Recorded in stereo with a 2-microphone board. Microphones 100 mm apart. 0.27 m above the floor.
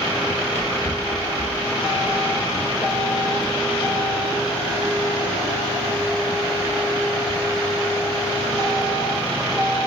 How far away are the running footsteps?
About 2.5 m.